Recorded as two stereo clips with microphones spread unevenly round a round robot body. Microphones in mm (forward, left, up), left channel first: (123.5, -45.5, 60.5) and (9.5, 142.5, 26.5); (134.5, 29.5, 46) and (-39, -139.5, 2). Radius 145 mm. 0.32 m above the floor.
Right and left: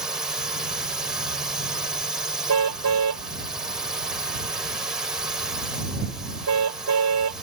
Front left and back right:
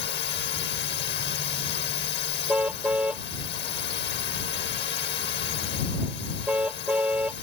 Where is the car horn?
140° left.